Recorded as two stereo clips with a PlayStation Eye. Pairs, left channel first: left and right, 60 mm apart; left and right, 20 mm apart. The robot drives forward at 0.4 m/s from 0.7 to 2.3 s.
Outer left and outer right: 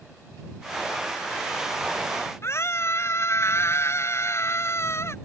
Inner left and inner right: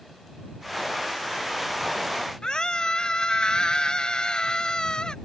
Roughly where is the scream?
Left.